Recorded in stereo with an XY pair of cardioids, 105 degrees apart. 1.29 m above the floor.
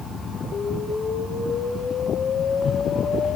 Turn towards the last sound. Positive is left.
turn(degrees=50)